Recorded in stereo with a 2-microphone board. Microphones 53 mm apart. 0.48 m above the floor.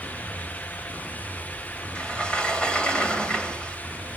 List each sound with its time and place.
1.9 s a sliding door: 20° left (ahead or behind), 2.5 m